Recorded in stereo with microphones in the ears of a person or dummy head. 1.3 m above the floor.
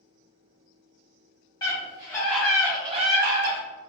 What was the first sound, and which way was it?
A scream, 25° left (ahead or behind).